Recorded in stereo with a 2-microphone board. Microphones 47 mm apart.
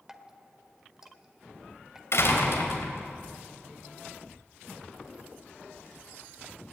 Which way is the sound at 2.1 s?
70° left (ahead or behind).